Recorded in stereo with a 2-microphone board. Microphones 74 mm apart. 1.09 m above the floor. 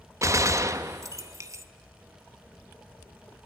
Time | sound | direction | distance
0.2 | a gunshot | 40° right (ahead or behind) | 0.9 m